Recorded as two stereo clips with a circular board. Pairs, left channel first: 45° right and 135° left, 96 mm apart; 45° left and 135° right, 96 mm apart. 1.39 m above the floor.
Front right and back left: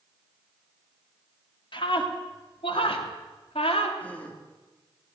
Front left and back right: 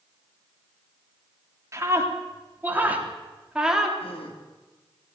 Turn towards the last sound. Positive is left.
turn(degrees=30)